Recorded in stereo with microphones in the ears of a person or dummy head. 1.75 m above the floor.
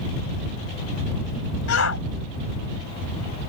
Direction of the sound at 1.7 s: 70° left (ahead or behind).